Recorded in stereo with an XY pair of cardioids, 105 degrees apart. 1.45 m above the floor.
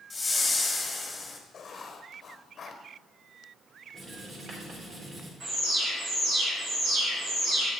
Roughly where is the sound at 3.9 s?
Ahead right.